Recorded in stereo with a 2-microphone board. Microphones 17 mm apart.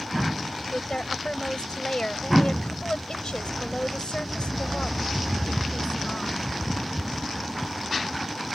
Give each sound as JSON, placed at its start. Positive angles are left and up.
{"t": 0.7, "sound": "a woman speaking", "side_deg": 80}